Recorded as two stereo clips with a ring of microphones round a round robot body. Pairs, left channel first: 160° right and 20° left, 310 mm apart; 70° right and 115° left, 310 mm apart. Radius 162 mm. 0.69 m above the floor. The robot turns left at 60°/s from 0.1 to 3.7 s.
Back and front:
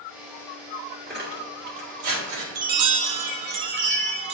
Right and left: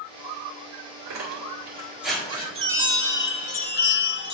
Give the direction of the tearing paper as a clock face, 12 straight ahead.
9 o'clock.